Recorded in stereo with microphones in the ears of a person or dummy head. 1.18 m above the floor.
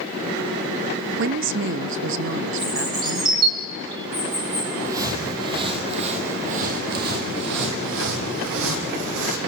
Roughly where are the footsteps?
Centre.